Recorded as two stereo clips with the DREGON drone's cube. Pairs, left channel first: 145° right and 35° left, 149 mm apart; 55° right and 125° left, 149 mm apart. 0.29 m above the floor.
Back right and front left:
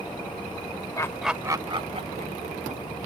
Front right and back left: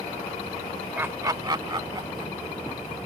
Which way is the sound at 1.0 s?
175° right.